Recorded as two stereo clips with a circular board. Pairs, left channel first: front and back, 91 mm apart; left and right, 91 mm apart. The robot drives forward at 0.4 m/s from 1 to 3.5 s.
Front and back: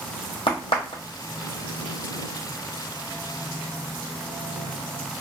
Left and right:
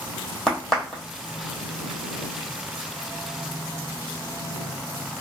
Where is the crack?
5° left, 1.4 m.